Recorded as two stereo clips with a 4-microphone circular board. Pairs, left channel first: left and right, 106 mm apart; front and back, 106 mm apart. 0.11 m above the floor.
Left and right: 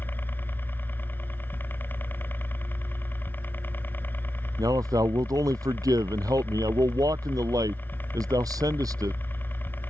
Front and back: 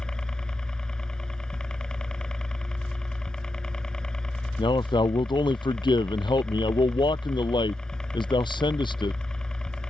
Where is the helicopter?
70° left.